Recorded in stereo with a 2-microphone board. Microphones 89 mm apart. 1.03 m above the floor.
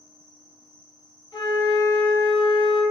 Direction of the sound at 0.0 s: 45° left (ahead or behind).